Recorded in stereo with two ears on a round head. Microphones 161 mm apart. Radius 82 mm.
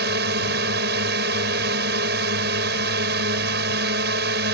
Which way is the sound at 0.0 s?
65° right (ahead or behind).